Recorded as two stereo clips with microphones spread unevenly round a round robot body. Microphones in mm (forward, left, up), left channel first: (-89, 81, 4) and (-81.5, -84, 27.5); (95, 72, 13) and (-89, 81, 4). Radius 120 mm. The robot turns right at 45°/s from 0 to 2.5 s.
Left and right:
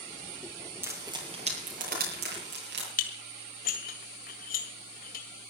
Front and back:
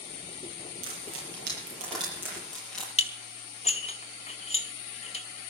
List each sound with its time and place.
0.8 s frying: 165° right, 8 m; by 2.9 s 90° right, 8 m
3.0 s dishes clattering: 50° left, 1.7 m